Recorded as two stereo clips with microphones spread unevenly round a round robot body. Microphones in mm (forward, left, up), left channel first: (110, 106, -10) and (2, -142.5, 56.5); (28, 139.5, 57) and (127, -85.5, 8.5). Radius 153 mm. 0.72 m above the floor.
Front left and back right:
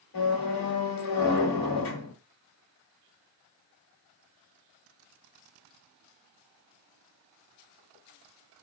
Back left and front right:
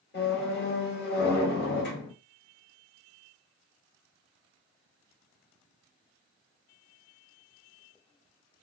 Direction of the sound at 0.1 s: 75° left.